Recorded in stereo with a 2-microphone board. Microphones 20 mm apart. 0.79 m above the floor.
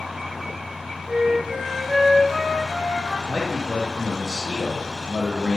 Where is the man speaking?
25° left (ahead or behind), 0.7 m.